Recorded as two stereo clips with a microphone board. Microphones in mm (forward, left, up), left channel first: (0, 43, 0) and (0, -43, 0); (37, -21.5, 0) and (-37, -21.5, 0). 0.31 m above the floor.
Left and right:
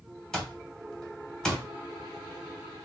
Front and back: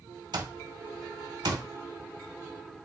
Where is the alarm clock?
170° left, 0.6 m.